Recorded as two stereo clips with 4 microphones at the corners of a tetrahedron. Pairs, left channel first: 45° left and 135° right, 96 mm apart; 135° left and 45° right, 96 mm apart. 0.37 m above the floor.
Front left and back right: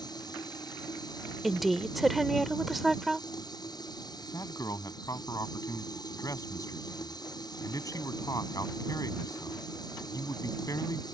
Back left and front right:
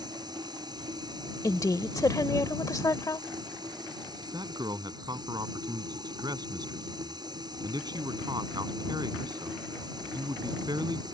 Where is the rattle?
No rattle in this recording.